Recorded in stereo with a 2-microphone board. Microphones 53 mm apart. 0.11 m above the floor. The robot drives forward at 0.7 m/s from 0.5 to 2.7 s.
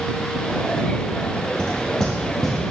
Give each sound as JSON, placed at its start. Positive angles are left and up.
{"t": 1.6, "sound": "knocking", "side_deg": 15, "distance_m": 2.5}